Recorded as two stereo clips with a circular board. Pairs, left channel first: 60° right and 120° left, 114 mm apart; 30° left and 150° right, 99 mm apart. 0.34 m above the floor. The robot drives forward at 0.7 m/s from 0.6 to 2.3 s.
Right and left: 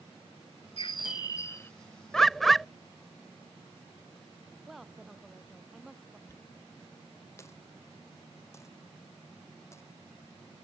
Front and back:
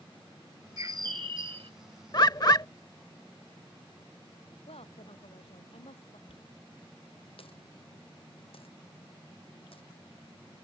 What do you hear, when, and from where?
0.8 s a bird: 95° right; by 1.7 s 130° right
2.1 s a bird: 25° left; by 2.7 s 30° left
4.7 s a woman speaking: 30° left
6.3 s a dropped coin: 5° left